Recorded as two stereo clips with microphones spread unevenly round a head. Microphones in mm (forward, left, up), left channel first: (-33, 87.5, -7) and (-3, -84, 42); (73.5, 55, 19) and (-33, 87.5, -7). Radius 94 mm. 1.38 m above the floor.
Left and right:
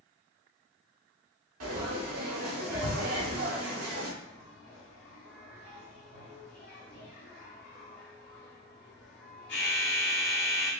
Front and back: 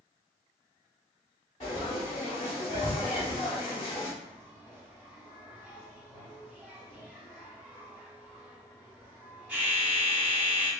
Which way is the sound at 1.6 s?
80° right.